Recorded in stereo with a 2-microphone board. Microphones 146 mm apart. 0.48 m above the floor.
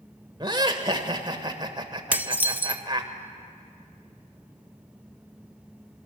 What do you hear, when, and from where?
0.4 s laughter: 30° right (ahead or behind), 1.6 m
2.1 s dishes clattering: 10° right (ahead or behind), 0.6 m